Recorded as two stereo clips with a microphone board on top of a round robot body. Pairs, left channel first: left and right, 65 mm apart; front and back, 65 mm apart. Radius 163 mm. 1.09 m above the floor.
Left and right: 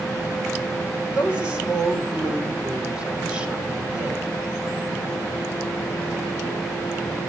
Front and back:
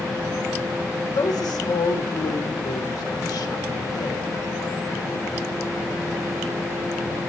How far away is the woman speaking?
About 4 m.